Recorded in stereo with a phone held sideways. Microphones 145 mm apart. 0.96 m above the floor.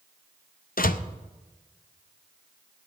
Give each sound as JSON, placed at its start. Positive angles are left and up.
{"t": 0.8, "sound": "a door slam", "side_deg": 70, "distance_m": 0.6}